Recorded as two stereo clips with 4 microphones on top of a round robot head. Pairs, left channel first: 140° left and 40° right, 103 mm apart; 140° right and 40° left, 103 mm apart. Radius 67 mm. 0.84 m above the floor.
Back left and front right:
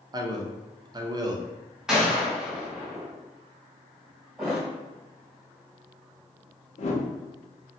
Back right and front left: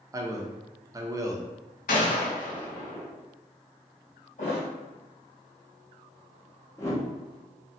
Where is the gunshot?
125° right, 0.8 m.